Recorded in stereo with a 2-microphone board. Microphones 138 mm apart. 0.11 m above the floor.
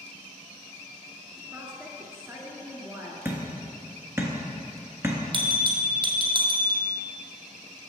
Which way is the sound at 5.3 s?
40° right (ahead or behind).